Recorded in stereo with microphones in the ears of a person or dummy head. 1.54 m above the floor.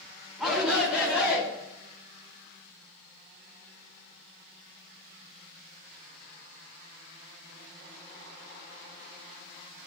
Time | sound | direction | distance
0.4 | a shout | 5° right (ahead or behind) | 4.5 m